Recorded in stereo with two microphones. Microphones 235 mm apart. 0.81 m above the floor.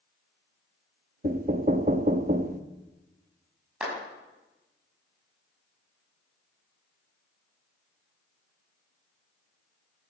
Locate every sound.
1.2 s knocking: 40° right (ahead or behind), 0.7 m
3.8 s a clap: 5° right (ahead or behind), 5.5 m